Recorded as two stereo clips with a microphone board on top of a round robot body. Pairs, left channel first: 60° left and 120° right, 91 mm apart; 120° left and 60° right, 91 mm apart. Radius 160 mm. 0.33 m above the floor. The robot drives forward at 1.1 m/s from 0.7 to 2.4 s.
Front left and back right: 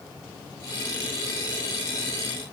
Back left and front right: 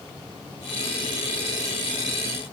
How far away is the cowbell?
I don't hear a cowbell.